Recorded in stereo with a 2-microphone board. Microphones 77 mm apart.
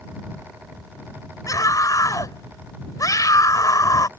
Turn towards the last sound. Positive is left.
turn(degrees=45)  # may be behind; listen again after turning